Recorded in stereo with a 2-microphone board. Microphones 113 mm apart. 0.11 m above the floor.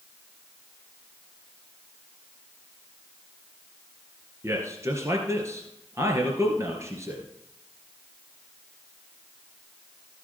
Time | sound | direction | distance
4.4 | a man speaking | 25° right (ahead or behind) | 2.5 m